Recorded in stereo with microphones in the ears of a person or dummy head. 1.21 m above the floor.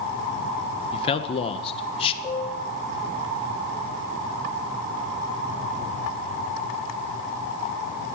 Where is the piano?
15° left (ahead or behind), 0.9 m.